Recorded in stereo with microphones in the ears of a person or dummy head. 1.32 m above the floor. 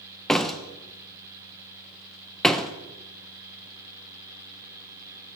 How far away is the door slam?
About 0.6 m.